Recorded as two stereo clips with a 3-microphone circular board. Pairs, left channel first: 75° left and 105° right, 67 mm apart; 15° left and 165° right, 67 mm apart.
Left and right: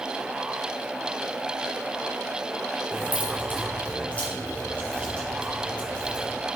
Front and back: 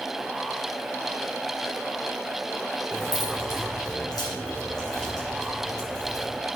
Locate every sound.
2.9 s keys jangling: 15° left, 2.5 m; by 6.4 s 5° left, 5.5 m